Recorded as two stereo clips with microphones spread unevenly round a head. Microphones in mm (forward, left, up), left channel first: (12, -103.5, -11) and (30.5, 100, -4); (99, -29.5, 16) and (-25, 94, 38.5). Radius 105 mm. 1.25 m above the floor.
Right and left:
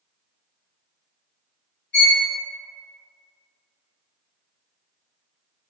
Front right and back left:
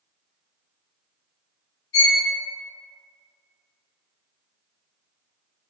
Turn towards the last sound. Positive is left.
turn(degrees=-60)